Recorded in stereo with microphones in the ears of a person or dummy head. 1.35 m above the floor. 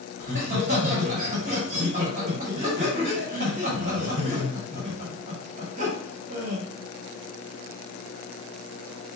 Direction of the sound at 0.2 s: 40° right (ahead or behind).